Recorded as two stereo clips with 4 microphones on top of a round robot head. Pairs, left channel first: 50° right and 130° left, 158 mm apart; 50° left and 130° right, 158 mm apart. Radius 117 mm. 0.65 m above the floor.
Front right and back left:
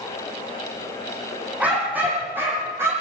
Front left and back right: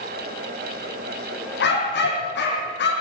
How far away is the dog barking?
About 9 m.